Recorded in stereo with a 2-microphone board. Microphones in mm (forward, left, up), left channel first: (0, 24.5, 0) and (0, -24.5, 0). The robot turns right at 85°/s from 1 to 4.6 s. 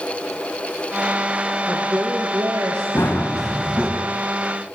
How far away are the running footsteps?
About 4 m.